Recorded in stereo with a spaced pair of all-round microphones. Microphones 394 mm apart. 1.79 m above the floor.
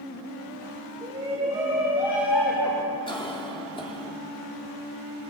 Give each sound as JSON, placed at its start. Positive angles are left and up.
{"t": 1.0, "sound": "a shout", "side_deg": -15, "distance_m": 5.5}
{"t": 3.1, "sound": "a cough", "side_deg": 10, "distance_m": 3.5}